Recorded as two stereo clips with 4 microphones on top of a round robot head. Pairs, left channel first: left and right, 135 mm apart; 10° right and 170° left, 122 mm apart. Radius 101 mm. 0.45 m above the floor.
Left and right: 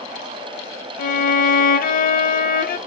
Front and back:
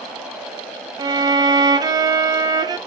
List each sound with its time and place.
1.0 s a violin: 110° left, 0.5 m